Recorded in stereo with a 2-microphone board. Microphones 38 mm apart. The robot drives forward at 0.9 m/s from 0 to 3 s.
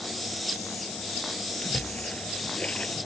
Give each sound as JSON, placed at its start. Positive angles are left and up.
{"t": 1.6, "sound": "a splash", "side_deg": 25}